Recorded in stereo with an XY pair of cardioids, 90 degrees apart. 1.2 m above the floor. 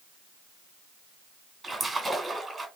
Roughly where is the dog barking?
No dog barking in this recording.